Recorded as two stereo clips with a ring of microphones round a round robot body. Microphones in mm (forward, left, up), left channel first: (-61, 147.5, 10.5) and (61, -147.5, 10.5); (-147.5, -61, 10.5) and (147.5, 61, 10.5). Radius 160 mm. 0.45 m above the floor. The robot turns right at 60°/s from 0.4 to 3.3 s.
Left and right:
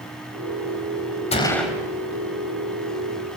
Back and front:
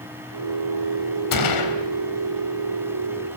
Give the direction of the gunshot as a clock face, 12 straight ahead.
6 o'clock.